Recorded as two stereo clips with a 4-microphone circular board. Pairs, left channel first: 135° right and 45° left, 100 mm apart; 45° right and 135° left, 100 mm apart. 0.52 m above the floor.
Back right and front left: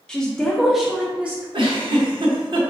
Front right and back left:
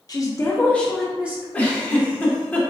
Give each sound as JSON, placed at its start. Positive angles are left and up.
{"t": 0.1, "sound": "a woman speaking", "azimuth_deg": -60, "distance_m": 0.8}
{"t": 1.5, "sound": "a giggle", "azimuth_deg": 30, "distance_m": 0.6}